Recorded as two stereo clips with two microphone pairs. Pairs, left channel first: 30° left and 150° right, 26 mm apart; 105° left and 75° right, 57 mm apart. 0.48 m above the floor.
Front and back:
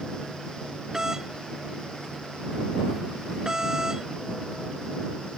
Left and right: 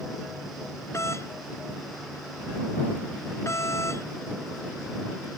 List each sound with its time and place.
0.9 s a doorbell: 145° left